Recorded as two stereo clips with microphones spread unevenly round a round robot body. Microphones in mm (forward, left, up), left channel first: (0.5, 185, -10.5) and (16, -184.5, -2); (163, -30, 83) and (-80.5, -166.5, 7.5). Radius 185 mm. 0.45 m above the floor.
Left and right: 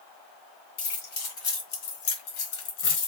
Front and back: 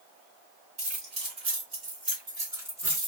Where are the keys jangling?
140° left, 2.5 m; by 3.1 s 130° left, 1.3 m.